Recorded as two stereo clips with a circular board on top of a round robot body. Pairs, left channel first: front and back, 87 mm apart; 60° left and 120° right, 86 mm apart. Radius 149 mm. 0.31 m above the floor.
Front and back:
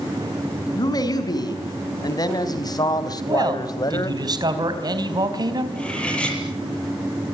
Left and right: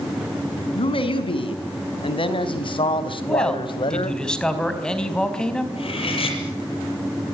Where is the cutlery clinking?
80° left, 7.5 m.